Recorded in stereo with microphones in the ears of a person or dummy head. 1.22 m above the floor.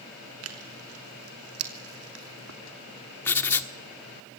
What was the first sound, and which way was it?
Tearing paper, 80° right.